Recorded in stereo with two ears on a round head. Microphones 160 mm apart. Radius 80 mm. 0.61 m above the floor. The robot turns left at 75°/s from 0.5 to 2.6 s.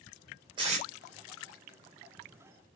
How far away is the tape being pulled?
About 3 m.